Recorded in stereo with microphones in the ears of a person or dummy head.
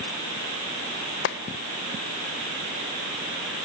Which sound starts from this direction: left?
A clap, at 1.2 s.